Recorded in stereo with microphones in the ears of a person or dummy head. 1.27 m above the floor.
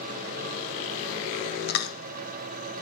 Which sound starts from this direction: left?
Chewing, at 1.7 s.